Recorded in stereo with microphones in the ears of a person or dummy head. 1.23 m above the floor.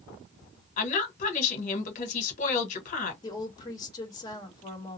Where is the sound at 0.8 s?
50° left (ahead or behind), 1.7 m.